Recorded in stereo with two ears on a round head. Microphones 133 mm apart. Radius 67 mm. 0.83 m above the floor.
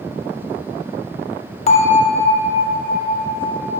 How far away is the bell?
About 1.1 m.